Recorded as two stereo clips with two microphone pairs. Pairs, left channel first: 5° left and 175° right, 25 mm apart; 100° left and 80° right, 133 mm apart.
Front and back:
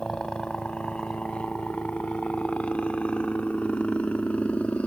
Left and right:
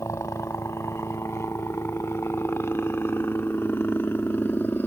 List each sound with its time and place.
0.0 s a helicopter: 45° left; by 4.9 s 25° left